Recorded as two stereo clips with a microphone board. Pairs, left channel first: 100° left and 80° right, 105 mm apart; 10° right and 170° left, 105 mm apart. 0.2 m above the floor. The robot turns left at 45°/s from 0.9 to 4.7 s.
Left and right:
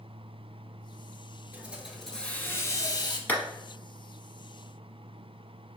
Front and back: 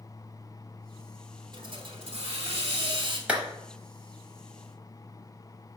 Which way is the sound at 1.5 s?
150° right.